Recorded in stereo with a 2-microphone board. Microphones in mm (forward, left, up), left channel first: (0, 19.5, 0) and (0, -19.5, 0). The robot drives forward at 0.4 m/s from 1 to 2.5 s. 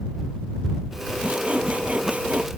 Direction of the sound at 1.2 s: 35° right (ahead or behind).